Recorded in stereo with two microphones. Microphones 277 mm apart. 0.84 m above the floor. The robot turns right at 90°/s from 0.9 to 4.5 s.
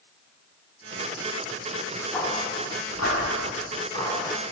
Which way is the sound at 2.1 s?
5° left (ahead or behind).